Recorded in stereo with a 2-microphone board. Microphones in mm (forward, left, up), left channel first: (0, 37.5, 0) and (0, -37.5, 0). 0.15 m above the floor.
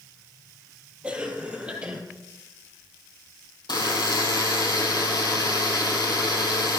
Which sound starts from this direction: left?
A buzzer, at 3.7 s.